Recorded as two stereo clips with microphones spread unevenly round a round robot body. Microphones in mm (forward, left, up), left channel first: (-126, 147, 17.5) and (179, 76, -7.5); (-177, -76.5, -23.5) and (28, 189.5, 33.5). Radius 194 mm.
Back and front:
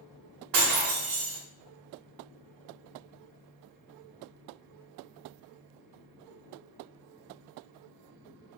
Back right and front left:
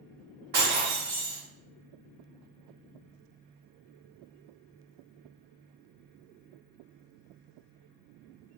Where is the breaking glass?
5° right, 0.7 m.